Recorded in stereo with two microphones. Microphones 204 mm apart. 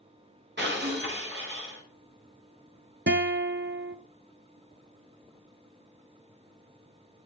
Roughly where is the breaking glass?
Right.